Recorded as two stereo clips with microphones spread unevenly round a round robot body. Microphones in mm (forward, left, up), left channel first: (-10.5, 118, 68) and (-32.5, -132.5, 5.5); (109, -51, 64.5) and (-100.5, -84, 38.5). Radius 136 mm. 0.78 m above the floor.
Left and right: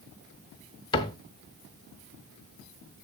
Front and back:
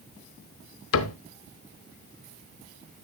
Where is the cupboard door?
20° left, 0.7 m.